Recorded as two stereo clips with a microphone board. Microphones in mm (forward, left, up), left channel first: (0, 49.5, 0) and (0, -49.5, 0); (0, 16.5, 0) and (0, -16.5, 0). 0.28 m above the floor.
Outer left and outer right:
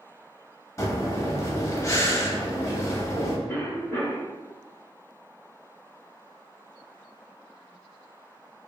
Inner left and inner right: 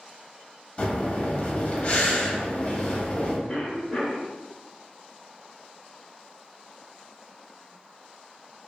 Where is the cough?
25° left (ahead or behind), 1.0 m.